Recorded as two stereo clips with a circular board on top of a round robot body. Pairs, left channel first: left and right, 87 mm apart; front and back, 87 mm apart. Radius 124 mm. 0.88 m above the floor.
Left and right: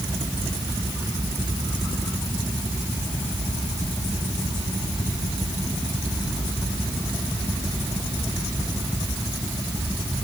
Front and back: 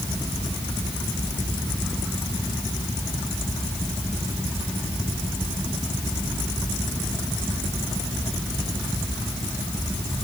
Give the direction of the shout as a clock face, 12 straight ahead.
No shout in this recording.